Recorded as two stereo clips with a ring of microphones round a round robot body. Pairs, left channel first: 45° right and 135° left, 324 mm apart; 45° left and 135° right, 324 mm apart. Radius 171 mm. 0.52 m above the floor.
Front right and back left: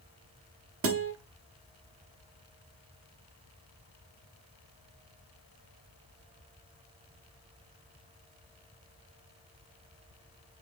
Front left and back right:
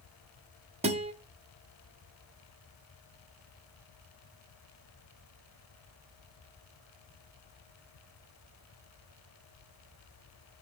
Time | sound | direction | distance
0.8 | a guitar | 160° left | 1.0 m